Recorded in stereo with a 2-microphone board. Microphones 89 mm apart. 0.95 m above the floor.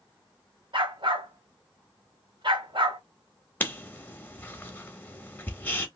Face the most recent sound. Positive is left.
turn(degrees=20)  # may be behind; listen again after turning